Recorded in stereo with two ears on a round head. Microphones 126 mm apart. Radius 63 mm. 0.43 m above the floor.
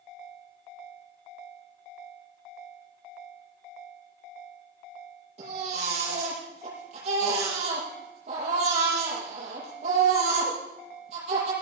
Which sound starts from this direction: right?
A baby crying, at 5.4 s.